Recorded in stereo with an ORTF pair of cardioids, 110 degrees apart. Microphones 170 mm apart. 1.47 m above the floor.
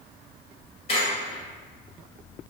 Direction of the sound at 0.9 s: 35° left.